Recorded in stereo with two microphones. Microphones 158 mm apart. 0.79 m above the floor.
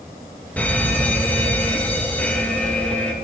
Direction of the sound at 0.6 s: 10° left (ahead or behind).